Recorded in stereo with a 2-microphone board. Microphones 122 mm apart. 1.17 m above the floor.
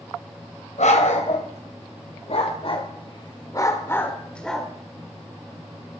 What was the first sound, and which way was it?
A dog barking, 75° left (ahead or behind).